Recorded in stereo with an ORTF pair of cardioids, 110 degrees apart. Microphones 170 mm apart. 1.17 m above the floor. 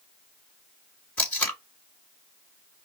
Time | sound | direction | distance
1.2 | tape being pulled | 10° left | 2.5 m